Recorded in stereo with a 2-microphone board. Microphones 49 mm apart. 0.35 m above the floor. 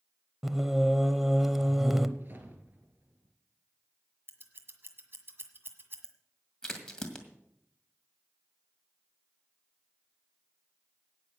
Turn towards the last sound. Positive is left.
turn(degrees=15)  # may be behind; listen again after turning